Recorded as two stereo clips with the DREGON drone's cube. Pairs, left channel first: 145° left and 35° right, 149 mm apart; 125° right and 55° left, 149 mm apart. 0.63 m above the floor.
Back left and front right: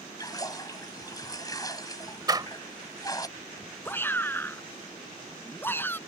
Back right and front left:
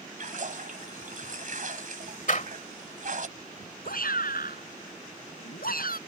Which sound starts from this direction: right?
A door slam, at 2.3 s.